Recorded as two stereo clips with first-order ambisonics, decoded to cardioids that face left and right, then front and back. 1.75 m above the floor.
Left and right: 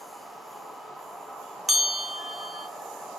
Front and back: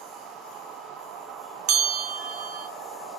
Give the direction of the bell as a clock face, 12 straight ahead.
6 o'clock.